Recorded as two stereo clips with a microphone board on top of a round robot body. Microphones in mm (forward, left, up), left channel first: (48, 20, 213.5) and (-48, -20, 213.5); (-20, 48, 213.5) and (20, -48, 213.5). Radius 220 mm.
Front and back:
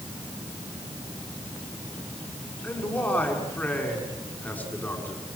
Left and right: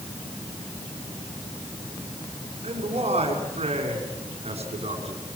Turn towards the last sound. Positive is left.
turn(degrees=-50)